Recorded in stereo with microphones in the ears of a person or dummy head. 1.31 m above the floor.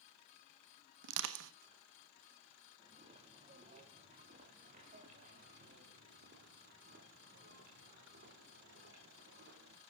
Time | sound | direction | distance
1.0 | crushing | 70° right (ahead or behind) | 1.2 m
2.8 | footsteps | 30° right (ahead or behind) | 4 m